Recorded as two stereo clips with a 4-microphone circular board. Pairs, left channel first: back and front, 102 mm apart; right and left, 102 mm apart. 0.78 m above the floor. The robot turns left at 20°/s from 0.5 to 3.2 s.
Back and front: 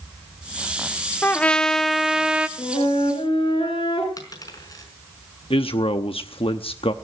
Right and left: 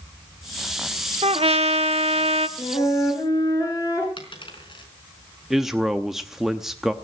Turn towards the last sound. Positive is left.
turn(degrees=175)